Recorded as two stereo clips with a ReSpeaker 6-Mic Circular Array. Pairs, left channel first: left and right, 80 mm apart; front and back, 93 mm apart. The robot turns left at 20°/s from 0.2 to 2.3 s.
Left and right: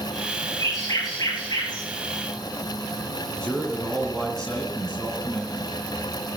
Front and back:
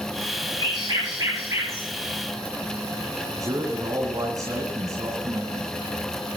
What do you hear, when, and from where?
0.6 s a bird: 140° left, 9.5 m; by 1.9 s 115° left, 9.5 m
3.4 s a man speaking: 165° left, 2.0 m